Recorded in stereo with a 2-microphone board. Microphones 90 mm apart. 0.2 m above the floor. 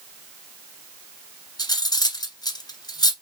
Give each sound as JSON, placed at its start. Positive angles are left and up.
{"t": 1.6, "sound": "cutlery clinking", "side_deg": 45, "distance_m": 1.2}